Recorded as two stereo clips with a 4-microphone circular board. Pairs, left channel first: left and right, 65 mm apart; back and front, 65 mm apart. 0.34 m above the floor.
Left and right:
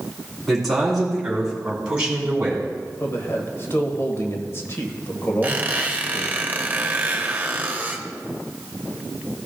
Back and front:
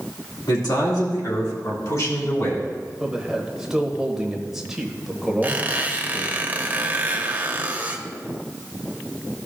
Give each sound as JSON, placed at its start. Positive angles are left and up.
{"t": 0.5, "sound": "a man speaking", "azimuth_deg": 180, "distance_m": 3.5}
{"t": 3.0, "sound": "a man speaking", "azimuth_deg": 75, "distance_m": 1.3}
{"t": 5.4, "sound": "a squeak", "azimuth_deg": -45, "distance_m": 0.9}